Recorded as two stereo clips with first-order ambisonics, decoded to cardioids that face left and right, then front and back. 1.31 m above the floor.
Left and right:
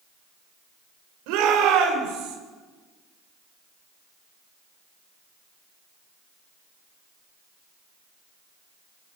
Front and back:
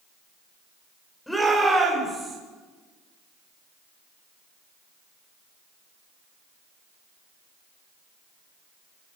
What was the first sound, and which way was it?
A shout, 85° right.